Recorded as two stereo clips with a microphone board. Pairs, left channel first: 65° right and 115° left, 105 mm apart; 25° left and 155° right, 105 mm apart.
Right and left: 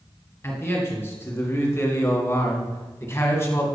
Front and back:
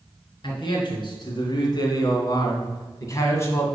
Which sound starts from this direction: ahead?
A man speaking, at 0.4 s.